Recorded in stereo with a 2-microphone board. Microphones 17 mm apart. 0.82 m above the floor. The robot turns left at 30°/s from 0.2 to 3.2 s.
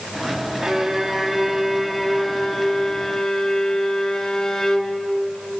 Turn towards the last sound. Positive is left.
turn(degrees=160)